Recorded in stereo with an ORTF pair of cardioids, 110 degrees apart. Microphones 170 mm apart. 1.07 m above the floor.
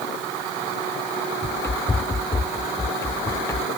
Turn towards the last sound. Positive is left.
turn(degrees=15)